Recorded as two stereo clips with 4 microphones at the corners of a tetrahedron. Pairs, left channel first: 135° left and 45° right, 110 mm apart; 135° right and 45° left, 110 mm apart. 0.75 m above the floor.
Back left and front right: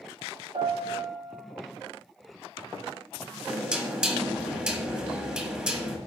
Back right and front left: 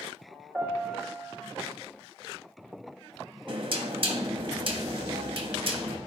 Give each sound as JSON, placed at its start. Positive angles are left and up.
{"t": 0.5, "sound": "a piano", "azimuth_deg": -45, "distance_m": 2.0}
{"t": 3.5, "sound": "knocking", "azimuth_deg": 30, "distance_m": 1.1}